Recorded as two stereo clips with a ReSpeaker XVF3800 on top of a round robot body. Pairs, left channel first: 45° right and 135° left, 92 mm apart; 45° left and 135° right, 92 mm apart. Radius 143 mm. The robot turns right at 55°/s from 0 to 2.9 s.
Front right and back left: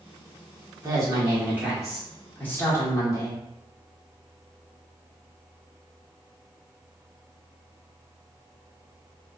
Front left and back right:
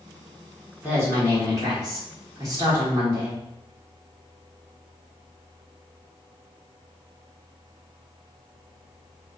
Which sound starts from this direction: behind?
A woman speaking, at 0.8 s.